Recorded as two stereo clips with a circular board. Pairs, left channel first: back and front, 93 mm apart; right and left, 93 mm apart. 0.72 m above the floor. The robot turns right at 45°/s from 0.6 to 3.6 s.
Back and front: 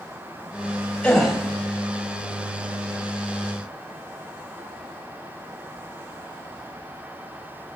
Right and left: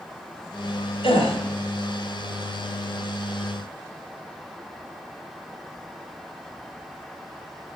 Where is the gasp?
100° right, 4 m; by 1.4 s 85° right, 4 m.